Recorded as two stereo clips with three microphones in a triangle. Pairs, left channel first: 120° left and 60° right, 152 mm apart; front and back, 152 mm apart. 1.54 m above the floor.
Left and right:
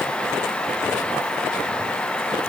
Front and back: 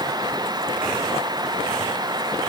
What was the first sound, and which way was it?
Only background noise.